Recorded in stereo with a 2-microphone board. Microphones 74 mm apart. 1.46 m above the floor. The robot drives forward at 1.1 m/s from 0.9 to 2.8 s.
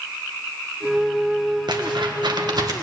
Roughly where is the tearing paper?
Right.